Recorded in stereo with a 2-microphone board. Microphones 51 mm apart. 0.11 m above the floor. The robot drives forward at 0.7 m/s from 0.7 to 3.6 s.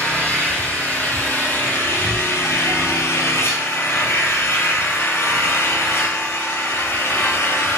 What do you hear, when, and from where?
0.0 s an engine running: 35° left (ahead or behind), 2 m; by 7.8 s 55° left (ahead or behind), 1.5 m